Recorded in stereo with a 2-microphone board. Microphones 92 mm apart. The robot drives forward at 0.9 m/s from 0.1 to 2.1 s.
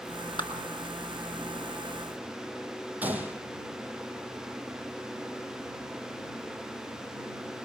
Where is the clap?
55° left (ahead or behind), 6 m; by 0.5 s 50° left (ahead or behind), 6 m.